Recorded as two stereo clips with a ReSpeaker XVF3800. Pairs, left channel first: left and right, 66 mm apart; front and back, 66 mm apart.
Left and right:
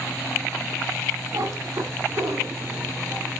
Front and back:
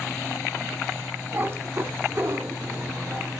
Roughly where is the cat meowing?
Behind right.